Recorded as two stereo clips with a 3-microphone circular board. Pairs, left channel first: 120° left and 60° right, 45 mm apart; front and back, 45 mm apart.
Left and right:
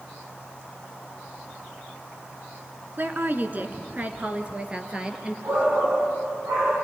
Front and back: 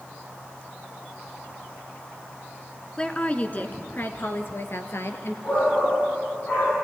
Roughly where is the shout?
Ahead right.